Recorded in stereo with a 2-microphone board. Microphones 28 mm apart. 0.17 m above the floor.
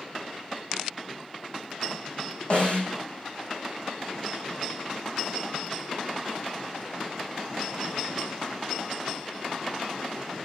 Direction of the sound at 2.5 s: 40° left (ahead or behind).